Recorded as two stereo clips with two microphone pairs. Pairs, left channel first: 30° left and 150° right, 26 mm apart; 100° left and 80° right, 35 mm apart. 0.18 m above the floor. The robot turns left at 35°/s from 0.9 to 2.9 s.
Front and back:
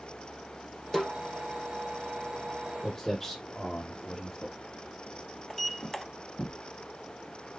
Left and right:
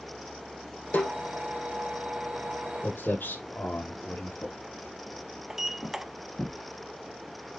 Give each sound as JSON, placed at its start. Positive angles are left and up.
{"t": 0.9, "sound": "a snare drum", "azimuth_deg": 125, "distance_m": 3.5}
{"t": 2.8, "sound": "footsteps", "azimuth_deg": 110, "distance_m": 4.0}
{"t": 5.5, "sound": "a sliding door", "azimuth_deg": -35, "distance_m": 0.7}